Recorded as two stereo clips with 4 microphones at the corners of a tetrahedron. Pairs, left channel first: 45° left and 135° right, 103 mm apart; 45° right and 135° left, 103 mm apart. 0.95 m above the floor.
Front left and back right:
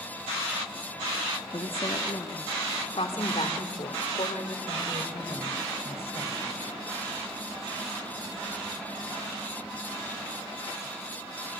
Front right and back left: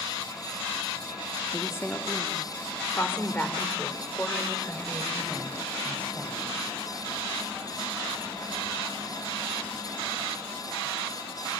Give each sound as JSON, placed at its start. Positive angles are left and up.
{"t": 1.5, "sound": "a woman speaking", "azimuth_deg": 20, "distance_m": 1.4}